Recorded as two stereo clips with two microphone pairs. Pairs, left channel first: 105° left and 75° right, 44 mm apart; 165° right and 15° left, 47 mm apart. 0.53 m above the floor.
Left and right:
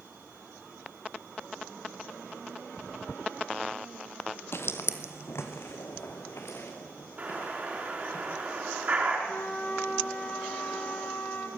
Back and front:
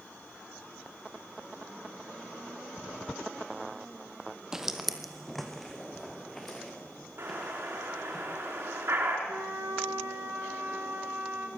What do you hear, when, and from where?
4.5 s footsteps: 95° left, 1.1 m; by 8.2 s 115° left, 6 m
7.2 s an explosion: 20° right, 5 m
9.3 s a flute: 50° left, 3.5 m